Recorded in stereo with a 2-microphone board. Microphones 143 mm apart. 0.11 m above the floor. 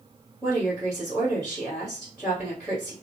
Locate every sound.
0.4 s a woman speaking: centre (ahead or behind), 2.0 m